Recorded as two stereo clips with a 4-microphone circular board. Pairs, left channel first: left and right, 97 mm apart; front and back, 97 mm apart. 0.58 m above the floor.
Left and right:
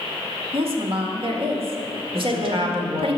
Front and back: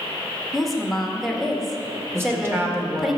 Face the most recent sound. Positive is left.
turn(degrees=-115)